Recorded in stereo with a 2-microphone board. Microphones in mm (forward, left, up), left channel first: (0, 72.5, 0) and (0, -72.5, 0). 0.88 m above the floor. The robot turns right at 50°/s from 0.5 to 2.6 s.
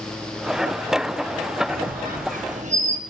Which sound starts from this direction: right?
A squeak, at 1.7 s.